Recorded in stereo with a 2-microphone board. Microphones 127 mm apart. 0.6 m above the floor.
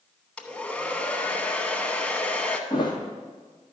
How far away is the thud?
About 2.0 m.